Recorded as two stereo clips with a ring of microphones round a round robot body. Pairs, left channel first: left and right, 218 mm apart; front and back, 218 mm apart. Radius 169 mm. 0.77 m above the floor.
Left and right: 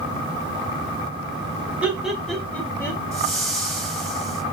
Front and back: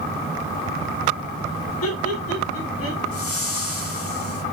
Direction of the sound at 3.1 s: 5° left.